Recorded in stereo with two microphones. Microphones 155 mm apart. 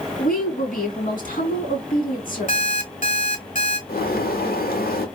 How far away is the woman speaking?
About 2 m.